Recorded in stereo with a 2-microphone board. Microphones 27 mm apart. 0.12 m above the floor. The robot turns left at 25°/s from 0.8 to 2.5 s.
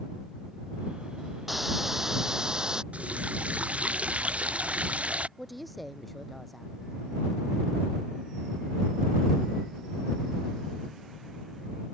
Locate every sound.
1.5 s a hiss: 5° right (ahead or behind); by 2.8 s 30° right (ahead or behind)
2.9 s a running tap: 55° right (ahead or behind)
5.4 s a woman speaking: centre (ahead or behind)